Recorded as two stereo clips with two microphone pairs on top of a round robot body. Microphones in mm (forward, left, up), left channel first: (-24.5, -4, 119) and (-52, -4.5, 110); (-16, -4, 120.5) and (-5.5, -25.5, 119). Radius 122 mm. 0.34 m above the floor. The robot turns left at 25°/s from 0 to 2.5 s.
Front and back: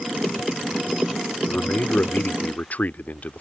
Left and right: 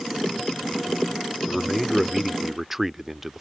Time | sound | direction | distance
1.5 | a man speaking | 30° left | ?